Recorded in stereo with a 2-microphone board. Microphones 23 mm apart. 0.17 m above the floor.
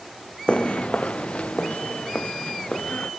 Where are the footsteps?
55° left (ahead or behind); by 3.1 s 80° left.